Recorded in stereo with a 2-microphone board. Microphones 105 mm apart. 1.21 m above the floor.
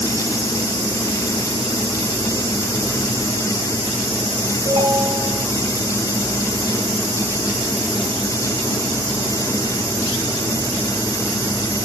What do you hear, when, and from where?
4.7 s a ringtone: 55° right (ahead or behind), 7 m